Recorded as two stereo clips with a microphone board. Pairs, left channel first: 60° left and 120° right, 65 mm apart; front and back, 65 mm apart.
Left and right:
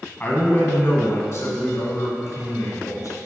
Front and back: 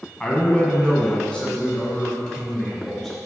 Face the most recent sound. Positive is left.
turn(degrees=75)